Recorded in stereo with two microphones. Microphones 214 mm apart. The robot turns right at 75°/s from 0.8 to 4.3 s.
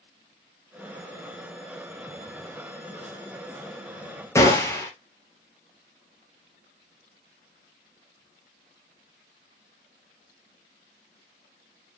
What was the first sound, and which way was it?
A gunshot, 15° left (ahead or behind).